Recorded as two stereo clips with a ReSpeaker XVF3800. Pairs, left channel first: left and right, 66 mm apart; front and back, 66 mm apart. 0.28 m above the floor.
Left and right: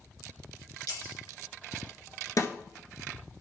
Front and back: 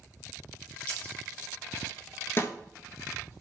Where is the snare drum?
50° left, 0.8 m.